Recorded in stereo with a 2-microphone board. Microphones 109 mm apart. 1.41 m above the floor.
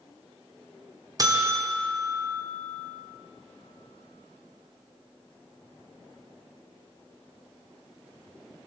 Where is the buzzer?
35° right (ahead or behind), 0.7 m.